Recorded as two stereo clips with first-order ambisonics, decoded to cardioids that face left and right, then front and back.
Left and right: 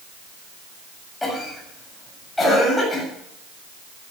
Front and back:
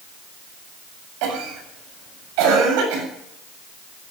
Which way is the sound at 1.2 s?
175° left.